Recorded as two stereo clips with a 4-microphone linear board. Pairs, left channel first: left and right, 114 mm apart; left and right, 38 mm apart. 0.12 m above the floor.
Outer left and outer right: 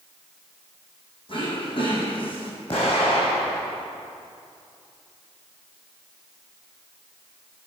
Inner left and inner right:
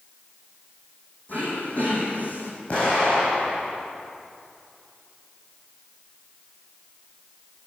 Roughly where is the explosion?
Left.